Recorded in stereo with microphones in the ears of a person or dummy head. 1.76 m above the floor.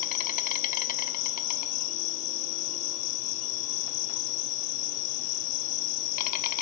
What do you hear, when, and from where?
0.0 s an insect: 45° left (ahead or behind), 0.8 m